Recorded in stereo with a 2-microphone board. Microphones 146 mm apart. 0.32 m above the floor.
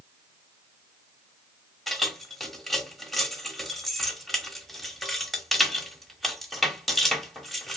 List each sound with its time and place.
1.9 s keys jangling: centre (ahead or behind), 0.9 m